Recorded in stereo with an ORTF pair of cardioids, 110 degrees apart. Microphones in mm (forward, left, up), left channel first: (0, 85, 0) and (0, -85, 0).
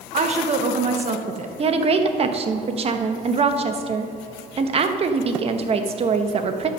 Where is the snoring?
No snoring in this recording.